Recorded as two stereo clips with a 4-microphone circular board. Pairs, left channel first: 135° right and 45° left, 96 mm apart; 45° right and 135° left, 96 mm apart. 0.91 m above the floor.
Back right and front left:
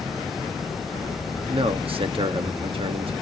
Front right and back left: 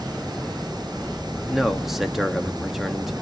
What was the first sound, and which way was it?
A man speaking, 45° left.